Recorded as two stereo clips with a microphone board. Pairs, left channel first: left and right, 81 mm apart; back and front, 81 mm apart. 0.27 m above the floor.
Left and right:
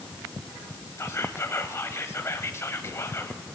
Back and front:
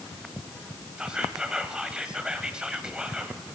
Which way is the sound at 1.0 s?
70° left.